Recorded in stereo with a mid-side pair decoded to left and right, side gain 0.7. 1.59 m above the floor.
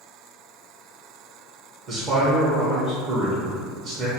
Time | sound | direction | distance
1.9 | a man speaking | 50° right | 0.9 m